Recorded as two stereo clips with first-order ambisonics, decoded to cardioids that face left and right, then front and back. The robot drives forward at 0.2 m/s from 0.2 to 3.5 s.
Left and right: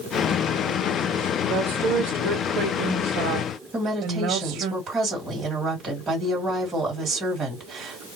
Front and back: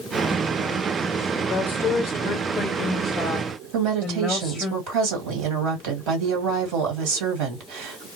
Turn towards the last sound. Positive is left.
turn(degrees=-160)